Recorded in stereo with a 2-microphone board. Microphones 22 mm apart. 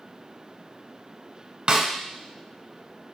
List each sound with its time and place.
1.7 s a snare drum: 40° right (ahead or behind), 0.8 m